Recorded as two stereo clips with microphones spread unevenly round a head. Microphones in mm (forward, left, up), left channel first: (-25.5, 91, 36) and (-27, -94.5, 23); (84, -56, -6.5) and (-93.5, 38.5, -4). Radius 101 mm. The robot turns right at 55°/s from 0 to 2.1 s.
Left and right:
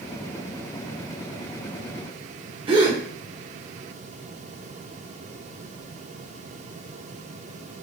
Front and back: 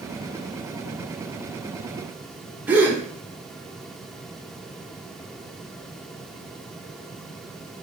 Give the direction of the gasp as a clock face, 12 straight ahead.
5 o'clock.